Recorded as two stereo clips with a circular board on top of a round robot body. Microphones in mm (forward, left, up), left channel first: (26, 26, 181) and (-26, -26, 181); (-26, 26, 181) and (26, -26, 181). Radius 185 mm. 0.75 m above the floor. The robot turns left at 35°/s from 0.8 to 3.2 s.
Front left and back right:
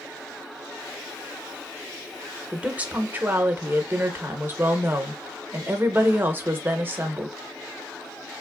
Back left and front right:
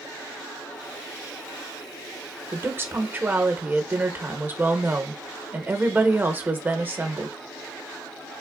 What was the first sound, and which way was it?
A woman speaking, 65° right.